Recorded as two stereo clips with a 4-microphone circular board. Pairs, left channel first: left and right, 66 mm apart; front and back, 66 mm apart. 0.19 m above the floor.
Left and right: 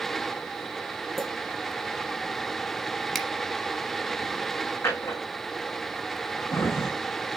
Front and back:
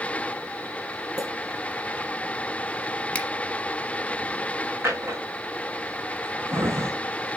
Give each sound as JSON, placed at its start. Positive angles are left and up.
{"t": 1.2, "sound": "a clink", "azimuth_deg": 175, "distance_m": 2.5}
{"t": 3.1, "sound": "a finger snap", "azimuth_deg": 10, "distance_m": 0.9}
{"t": 4.8, "sound": "a drawer", "azimuth_deg": 130, "distance_m": 3.0}